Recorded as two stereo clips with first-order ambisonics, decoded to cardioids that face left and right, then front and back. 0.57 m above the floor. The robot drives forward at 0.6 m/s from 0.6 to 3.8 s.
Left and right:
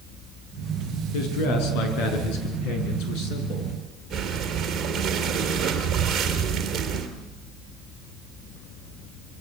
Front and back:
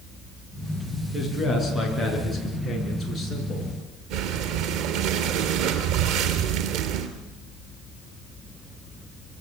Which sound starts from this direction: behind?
Breathing, at 4.1 s.